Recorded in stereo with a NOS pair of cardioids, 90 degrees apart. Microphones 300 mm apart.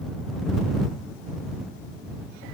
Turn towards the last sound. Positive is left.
No sound to turn to.